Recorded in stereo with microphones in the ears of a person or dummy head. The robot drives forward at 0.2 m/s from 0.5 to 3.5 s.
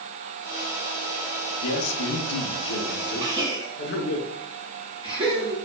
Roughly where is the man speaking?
Left.